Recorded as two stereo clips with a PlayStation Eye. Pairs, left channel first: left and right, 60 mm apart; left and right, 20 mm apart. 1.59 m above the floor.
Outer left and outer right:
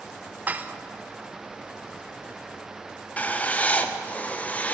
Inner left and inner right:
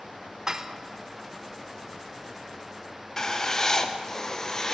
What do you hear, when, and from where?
0.5 s dishes clattering: 25° right (ahead or behind), 0.6 m
3.2 s writing: 25° left (ahead or behind), 0.8 m